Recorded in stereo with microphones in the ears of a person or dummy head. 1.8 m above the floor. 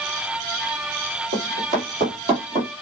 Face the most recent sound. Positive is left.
turn(degrees=-30)  # may be behind; listen again after turning